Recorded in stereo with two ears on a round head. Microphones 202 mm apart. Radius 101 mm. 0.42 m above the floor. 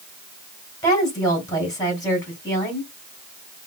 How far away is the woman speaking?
About 3 m.